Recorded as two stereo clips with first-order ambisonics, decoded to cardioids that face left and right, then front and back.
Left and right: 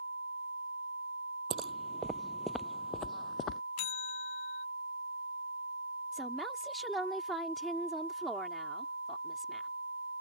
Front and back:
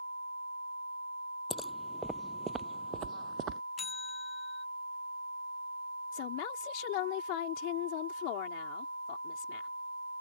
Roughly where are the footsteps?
Right.